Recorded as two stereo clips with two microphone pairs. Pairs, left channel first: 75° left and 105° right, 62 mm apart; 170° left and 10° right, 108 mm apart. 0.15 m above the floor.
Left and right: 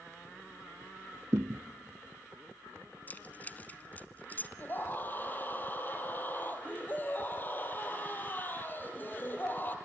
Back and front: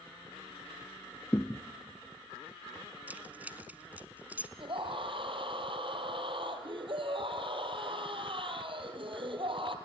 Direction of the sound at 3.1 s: 50° left.